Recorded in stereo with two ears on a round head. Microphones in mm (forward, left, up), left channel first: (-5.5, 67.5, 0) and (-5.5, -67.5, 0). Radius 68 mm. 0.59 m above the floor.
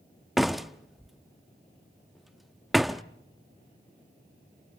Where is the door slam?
Centre (ahead or behind), 0.5 m.